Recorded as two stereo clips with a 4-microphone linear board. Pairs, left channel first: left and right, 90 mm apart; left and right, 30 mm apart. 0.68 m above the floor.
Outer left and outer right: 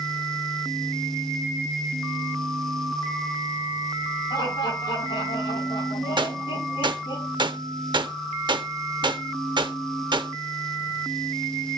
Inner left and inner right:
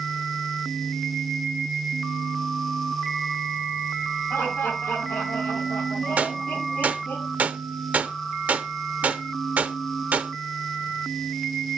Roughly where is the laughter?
Left.